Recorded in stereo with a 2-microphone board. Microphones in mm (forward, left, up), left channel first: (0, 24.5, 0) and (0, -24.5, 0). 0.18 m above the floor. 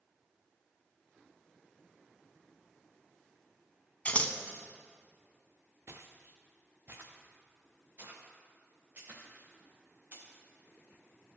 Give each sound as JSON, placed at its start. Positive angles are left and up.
{"t": 4.0, "sound": "scissors", "side_deg": 30, "distance_m": 0.6}
{"t": 5.9, "sound": "footsteps", "side_deg": -60, "distance_m": 0.9}